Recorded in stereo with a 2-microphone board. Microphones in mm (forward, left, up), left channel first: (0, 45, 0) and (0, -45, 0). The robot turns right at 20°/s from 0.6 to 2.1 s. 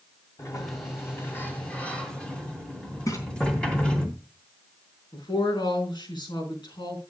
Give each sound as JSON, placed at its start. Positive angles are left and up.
{"t": 0.4, "sound": "a sliding door", "azimuth_deg": 140, "distance_m": 3.0}
{"t": 3.1, "sound": "a splash", "side_deg": 40, "distance_m": 3.5}
{"t": 5.1, "sound": "a woman speaking", "side_deg": 60, "distance_m": 4.5}